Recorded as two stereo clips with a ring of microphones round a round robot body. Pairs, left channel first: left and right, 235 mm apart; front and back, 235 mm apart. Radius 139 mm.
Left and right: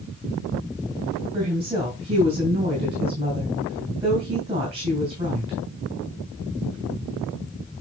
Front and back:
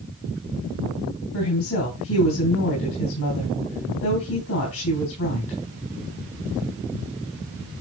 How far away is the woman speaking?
About 3 m.